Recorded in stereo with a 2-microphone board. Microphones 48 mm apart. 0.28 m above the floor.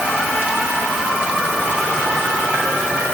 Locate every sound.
Only background noise.